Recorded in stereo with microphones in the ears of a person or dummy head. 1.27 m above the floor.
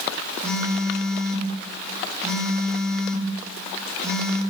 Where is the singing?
No singing in this recording.